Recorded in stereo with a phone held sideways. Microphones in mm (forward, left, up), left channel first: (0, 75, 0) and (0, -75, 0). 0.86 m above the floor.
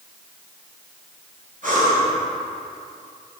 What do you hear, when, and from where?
1.6 s breathing: 65° right (ahead or behind), 3.5 m